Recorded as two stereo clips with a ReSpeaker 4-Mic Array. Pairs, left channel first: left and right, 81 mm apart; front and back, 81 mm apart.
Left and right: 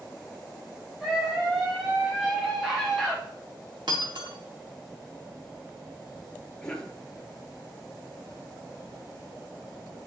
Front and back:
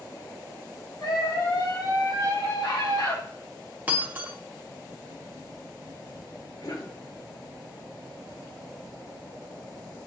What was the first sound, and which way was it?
A scream, 10° right.